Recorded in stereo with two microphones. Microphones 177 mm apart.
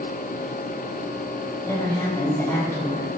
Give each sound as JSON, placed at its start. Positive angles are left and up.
{"t": 1.6, "sound": "a woman speaking", "side_deg": 20, "distance_m": 2.5}